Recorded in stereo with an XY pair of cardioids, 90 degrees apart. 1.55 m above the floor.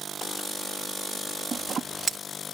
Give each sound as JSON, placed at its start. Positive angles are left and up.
{"t": 1.5, "sound": "scissors", "azimuth_deg": -50}